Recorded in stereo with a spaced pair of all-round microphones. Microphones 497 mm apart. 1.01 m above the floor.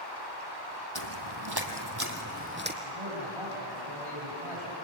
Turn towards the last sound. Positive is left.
turn(degrees=-75)  # may be behind; listen again after turning